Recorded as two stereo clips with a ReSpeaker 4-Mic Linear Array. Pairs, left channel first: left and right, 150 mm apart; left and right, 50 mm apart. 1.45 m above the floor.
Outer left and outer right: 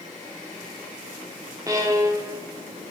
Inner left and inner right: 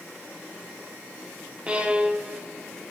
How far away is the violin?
About 1.0 m.